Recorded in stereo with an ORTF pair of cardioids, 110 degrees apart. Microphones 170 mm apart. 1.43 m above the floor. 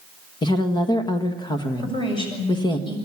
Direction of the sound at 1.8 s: 30° left.